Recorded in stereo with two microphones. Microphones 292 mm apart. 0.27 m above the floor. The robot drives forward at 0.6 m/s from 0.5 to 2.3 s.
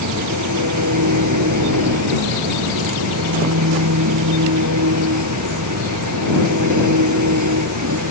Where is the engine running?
75° right (ahead or behind).